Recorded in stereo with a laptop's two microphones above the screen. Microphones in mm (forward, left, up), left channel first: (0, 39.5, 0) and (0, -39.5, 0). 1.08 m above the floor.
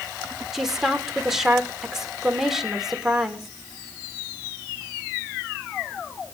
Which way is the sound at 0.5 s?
5° right (ahead or behind).